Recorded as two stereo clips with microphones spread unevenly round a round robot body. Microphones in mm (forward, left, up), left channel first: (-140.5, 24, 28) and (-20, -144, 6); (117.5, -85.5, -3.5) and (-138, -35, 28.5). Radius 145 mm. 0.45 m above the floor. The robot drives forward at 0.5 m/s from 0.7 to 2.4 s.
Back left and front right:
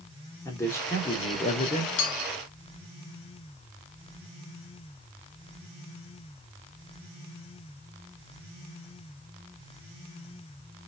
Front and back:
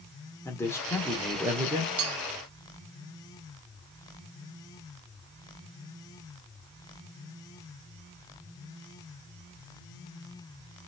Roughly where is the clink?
Behind left.